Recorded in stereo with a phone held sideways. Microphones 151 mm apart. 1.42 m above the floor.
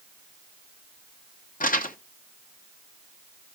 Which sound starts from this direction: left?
Crumpling, at 1.6 s.